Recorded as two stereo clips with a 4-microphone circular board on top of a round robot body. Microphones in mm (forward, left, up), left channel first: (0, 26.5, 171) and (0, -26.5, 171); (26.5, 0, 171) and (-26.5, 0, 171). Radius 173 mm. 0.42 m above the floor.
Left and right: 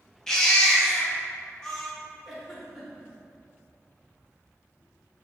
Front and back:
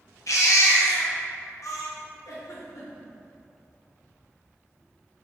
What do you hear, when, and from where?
0.3 s a baby crying: 10° left, 0.8 m
2.2 s a giggle: straight ahead, 0.8 m